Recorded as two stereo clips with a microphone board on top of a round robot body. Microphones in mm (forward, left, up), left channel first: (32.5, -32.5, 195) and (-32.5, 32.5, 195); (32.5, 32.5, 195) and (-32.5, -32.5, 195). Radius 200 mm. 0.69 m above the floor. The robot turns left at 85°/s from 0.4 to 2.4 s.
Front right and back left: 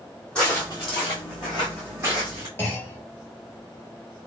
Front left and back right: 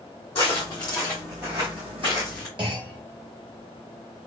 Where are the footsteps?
35° left, 2 m; by 2.5 s 95° left, 0.8 m.